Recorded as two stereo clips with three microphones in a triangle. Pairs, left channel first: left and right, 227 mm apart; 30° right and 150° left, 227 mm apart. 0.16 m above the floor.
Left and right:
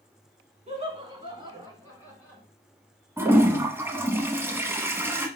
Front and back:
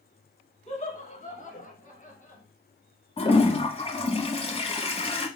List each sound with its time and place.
0.7 s laughter: 60° right, 1.4 m; by 2.4 s 5° right, 1.5 m
3.2 s a toilet flushing: 25° right, 1.0 m